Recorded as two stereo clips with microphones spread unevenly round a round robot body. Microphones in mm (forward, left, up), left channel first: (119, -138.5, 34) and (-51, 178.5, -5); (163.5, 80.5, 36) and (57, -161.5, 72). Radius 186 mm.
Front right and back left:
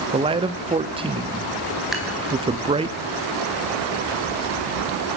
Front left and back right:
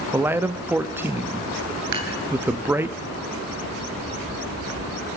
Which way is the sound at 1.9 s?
155° right.